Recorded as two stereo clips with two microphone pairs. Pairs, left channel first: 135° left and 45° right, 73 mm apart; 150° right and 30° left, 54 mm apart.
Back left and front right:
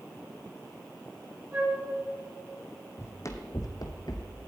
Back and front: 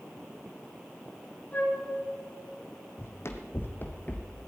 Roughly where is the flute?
Right.